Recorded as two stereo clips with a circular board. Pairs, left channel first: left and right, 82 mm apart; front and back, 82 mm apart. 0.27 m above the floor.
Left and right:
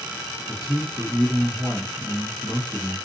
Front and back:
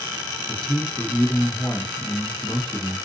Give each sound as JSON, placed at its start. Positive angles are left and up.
{"t": 0.5, "sound": "a man speaking", "azimuth_deg": -55, "distance_m": 1.1}